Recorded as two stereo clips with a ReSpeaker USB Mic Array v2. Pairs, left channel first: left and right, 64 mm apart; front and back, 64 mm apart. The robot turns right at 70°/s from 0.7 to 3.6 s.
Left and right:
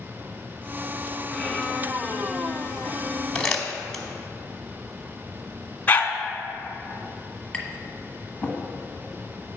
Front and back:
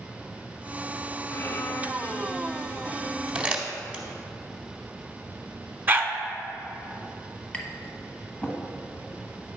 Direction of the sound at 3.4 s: 145° left.